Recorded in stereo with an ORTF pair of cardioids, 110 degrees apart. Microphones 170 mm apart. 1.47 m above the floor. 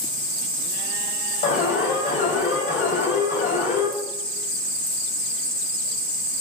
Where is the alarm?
45° left, 4 m.